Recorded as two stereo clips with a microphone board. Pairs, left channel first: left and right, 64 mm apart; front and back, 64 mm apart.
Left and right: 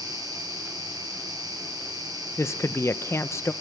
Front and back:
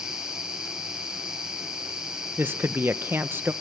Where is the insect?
100° right, 8.5 m.